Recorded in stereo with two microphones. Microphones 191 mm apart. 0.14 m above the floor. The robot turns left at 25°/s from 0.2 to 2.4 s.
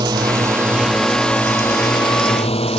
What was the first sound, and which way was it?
A drone, 160° right.